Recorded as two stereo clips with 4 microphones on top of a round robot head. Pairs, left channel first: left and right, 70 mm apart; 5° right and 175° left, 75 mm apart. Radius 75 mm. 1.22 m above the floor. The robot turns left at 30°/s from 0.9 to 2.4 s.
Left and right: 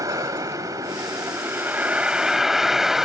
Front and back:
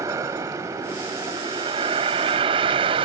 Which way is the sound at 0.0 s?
130° right.